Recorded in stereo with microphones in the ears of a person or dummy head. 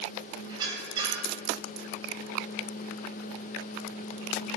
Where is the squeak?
35° right (ahead or behind), 2.5 m.